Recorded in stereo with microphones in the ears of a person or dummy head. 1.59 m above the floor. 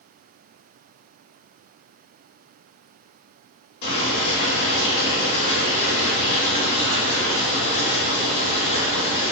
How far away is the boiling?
About 1.9 m.